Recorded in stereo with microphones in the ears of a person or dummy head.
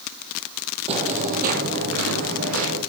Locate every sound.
0.9 s footsteps: 35° right (ahead or behind), 2.5 m; by 2.8 s 70° right (ahead or behind), 4 m